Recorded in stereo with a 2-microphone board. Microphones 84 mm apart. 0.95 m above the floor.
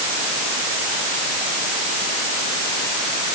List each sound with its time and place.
Only background noise.